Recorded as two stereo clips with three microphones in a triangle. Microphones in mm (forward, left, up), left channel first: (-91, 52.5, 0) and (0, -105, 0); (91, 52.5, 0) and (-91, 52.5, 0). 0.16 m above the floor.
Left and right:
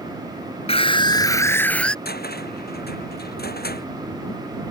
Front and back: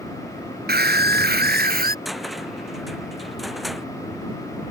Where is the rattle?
I don't hear a rattle.